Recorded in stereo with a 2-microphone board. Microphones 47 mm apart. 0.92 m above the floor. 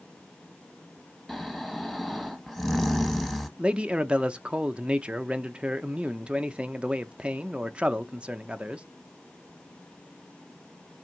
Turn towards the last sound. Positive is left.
turn(degrees=-20)  # may be behind; listen again after turning